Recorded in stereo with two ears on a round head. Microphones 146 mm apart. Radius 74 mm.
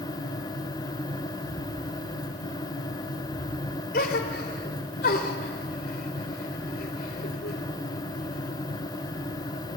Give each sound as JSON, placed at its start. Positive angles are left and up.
{"t": 1.3, "sound": "footsteps", "side_deg": -10, "distance_m": 3.0}
{"t": 3.9, "sound": "a gasp", "side_deg": 65, "distance_m": 3.0}